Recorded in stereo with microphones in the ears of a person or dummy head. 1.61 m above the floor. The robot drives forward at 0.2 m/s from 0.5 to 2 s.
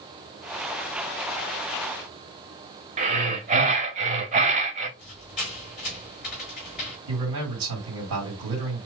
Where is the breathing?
35° right (ahead or behind), 0.8 m.